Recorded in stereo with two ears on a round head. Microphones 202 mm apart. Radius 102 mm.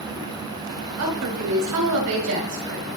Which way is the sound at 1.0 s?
80° right.